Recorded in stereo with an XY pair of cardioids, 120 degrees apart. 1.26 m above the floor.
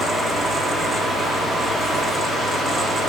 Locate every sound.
0.0 s a fan: 15° right, 1.1 m